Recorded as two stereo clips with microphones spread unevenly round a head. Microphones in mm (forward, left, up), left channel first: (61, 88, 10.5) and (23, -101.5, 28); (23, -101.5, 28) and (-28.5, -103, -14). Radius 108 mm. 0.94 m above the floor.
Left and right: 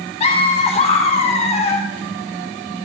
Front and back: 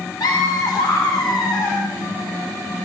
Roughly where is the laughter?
Ahead left.